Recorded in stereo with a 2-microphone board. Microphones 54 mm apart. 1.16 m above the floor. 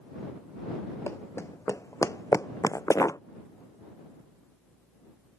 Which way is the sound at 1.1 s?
60° left (ahead or behind).